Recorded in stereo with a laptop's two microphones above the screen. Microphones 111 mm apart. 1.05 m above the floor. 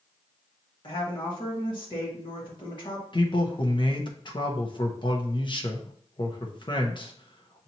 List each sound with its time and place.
0.8 s a woman speaking: 45° left (ahead or behind), 1.8 m
3.1 s a man speaking: 45° left (ahead or behind), 0.9 m